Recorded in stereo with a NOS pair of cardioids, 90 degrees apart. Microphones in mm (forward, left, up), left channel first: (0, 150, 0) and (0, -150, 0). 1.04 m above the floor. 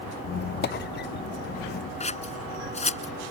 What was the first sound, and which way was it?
A squeak, 35° left.